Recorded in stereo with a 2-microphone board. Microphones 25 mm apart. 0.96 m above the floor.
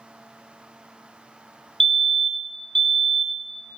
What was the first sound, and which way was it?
A fire alarm, 20° left (ahead or behind).